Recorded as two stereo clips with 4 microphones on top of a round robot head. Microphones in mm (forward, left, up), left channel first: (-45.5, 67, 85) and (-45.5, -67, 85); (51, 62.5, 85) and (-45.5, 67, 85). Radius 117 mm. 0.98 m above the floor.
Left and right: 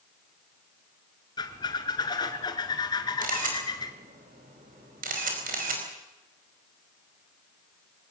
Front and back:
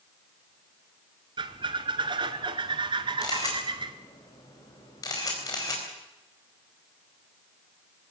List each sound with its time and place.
1.4 s a squeak: 145° left, 1.7 m
3.2 s a camera shutter: 65° right, 4.5 m